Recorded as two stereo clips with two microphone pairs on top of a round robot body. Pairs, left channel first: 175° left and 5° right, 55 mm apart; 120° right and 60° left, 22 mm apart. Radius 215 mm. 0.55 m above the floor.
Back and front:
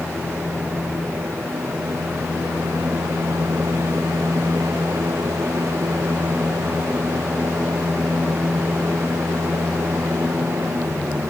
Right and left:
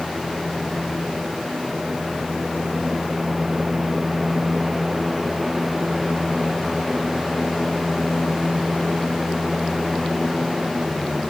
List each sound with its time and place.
Only background noise.